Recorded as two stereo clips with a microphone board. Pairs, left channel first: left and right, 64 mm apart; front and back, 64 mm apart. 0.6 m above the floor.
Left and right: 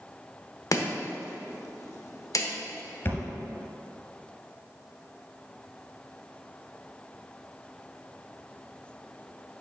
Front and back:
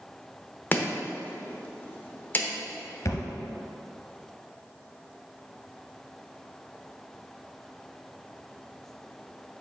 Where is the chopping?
60° left, 1.0 m.